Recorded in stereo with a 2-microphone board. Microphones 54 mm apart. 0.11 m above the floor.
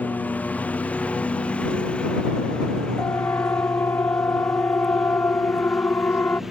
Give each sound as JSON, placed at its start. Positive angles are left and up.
{"t": 0.0, "sound": "a lawn mower", "side_deg": 30}
{"t": 3.0, "sound": "a siren", "side_deg": 55}